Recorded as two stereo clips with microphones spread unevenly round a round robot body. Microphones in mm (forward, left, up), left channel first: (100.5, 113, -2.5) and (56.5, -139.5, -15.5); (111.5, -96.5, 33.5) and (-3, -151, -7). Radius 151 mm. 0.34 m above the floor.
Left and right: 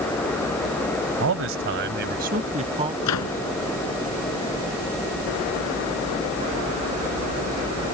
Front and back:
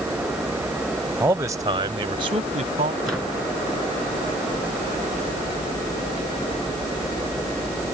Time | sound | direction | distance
1.2 | a man speaking | 105° right | ?
3.0 | a microwave | 120° left | ?